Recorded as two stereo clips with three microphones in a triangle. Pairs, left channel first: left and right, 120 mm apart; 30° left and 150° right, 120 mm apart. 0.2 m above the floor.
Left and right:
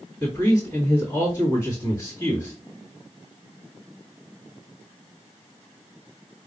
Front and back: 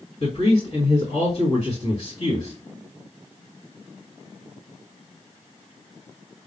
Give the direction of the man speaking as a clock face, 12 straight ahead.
11 o'clock.